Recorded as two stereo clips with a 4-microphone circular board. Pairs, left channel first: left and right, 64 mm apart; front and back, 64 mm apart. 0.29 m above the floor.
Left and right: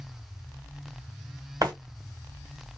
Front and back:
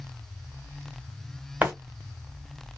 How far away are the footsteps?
About 1.5 m.